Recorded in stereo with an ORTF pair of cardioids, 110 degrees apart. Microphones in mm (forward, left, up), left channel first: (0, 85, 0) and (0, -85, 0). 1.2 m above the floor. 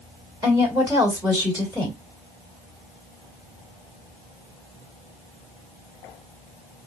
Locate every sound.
0.4 s a woman speaking: 10° right, 1.9 m